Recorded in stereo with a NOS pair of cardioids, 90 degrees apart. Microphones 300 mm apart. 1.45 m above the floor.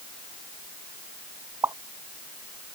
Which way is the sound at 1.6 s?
10° right.